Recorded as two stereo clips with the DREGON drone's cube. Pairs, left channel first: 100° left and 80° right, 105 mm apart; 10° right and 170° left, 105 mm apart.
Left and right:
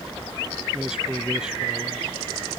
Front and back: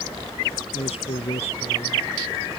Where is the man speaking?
5° left; by 2.6 s straight ahead.